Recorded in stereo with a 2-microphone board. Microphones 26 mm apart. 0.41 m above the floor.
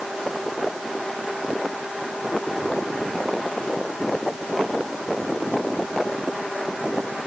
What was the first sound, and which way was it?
Only background noise.